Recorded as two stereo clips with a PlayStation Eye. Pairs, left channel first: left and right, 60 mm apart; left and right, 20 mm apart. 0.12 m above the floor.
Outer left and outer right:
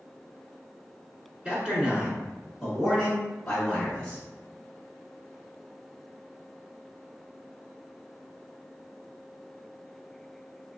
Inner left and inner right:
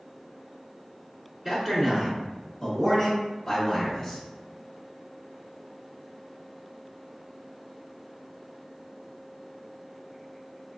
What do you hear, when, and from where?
1.4 s a man speaking: 20° right (ahead or behind), 1.3 m; by 4.2 s 15° left (ahead or behind), 1.6 m